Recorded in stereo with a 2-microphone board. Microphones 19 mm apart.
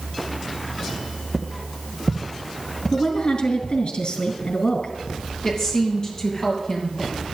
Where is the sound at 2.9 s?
65° left (ahead or behind), 3 m.